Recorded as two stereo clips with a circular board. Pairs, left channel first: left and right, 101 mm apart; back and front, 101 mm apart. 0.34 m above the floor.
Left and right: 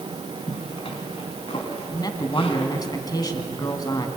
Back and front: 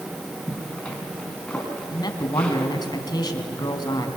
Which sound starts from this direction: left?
A zipper, at 0.5 s.